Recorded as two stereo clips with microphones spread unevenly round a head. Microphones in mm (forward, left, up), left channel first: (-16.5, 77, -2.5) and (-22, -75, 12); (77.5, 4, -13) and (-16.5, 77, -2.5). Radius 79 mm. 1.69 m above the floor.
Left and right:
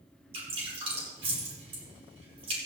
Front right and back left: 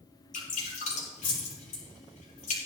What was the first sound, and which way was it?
Dripping, 35° right.